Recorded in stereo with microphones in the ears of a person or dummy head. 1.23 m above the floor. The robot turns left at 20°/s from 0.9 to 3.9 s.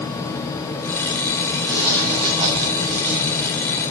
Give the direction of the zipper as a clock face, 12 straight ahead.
12 o'clock.